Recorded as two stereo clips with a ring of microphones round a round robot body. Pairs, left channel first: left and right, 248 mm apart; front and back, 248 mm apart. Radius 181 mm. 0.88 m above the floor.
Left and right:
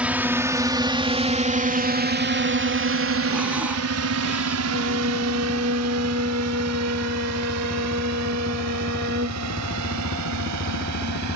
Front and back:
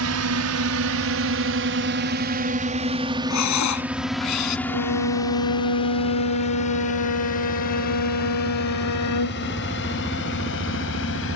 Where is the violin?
25° right.